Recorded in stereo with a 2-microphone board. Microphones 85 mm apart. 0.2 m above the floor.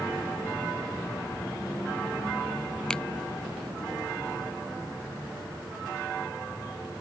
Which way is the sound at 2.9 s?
10° left (ahead or behind).